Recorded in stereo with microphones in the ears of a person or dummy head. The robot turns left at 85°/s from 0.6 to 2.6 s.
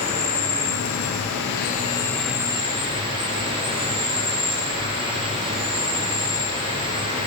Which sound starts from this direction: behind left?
An insect, at 0.0 s.